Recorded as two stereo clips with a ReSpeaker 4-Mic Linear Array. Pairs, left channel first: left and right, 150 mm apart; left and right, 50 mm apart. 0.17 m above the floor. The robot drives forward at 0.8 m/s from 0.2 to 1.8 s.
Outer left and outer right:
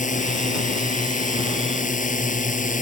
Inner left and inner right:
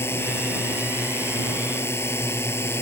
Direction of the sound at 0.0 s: 60° left (ahead or behind).